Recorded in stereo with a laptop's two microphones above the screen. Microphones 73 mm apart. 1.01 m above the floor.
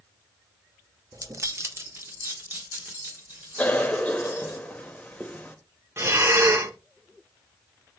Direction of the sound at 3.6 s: 20° left (ahead or behind).